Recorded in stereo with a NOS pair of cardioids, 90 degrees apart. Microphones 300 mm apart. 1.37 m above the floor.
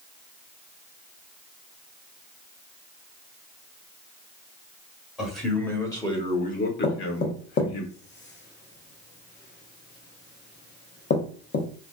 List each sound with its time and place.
5.2 s a man speaking: straight ahead, 1.2 m; by 7.8 s 80° left, 0.9 m
6.8 s knocking: 35° left, 0.8 m